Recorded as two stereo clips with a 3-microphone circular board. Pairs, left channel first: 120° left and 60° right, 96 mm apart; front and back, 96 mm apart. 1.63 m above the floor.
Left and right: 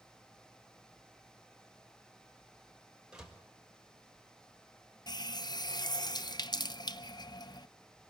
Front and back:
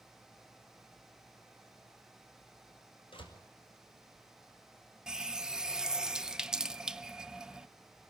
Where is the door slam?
20° left, 5.5 m.